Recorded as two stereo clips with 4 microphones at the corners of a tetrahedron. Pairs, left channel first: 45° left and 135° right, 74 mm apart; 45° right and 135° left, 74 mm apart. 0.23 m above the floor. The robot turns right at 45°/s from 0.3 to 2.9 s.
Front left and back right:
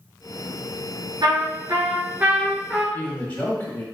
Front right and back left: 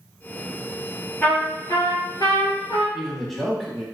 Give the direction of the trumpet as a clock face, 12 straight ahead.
4 o'clock.